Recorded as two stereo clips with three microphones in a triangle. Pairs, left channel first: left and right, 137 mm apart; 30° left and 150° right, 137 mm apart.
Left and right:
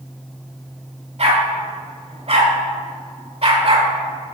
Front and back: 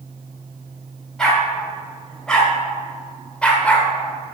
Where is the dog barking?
55° right, 3 m; by 3.9 s 50° right, 1.7 m.